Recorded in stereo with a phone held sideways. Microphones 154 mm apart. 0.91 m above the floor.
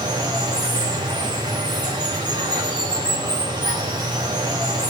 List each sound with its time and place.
0.0 s running water: 25° right (ahead or behind), 2.5 m